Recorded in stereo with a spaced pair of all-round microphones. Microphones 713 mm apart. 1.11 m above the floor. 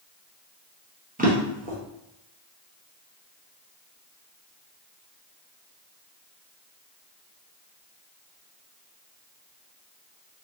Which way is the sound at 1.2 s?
15° right (ahead or behind).